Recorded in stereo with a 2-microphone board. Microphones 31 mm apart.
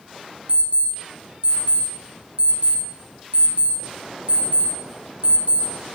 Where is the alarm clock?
50° right (ahead or behind), 2 m.